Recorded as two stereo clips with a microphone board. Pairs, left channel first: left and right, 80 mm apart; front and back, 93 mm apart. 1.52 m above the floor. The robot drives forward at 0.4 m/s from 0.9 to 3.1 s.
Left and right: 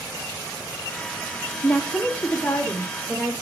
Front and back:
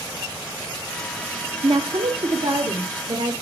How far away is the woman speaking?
About 0.9 m.